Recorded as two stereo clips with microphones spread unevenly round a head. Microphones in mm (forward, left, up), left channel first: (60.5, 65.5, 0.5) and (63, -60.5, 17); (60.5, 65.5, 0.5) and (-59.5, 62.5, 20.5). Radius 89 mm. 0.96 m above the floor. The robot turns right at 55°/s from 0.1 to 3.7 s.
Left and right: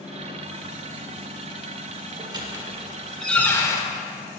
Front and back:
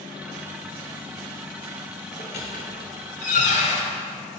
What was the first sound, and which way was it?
A squeak, 55° right.